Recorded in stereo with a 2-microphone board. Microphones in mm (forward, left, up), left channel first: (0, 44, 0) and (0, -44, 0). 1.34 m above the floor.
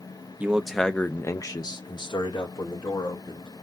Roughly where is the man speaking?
Centre.